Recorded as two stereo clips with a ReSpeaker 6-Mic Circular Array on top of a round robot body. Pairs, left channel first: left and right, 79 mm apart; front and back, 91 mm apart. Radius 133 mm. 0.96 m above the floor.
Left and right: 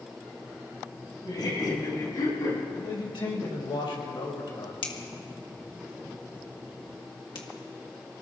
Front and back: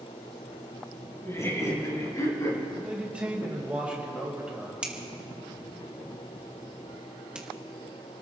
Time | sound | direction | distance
1.2 | laughter | 60° left | 6.5 m
2.8 | a man speaking | 105° left | 4.5 m
4.8 | a finger snap | 100° left | 2.0 m